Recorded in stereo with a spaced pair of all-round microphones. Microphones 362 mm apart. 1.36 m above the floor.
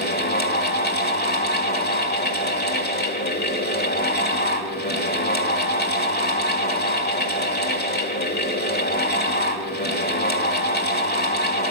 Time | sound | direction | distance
0.0 | a fan | 25° left (ahead or behind) | 2.0 m